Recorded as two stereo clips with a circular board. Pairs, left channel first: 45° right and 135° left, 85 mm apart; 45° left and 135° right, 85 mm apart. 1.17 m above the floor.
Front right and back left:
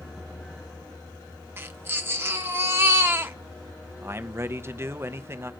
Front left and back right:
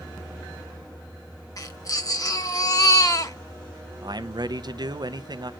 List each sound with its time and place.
1.6 s a baby crying: 80° left, 1.0 m
4.0 s a man speaking: 165° right, 0.6 m